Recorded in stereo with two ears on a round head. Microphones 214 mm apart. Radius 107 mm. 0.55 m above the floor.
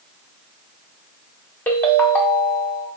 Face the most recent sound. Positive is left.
turn(degrees=5)  # may be behind; listen again after turning